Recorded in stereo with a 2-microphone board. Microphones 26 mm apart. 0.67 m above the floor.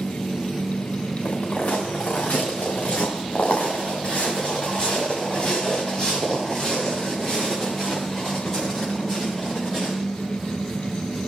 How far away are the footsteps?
About 4 m.